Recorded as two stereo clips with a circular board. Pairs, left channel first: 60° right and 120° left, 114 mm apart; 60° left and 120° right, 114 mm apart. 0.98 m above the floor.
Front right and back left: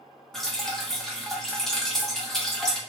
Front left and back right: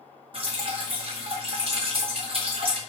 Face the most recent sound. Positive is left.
turn(degrees=-145)